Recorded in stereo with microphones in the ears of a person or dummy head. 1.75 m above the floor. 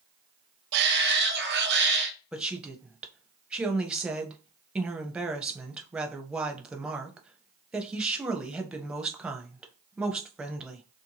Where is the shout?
60° right (ahead or behind), 0.7 m.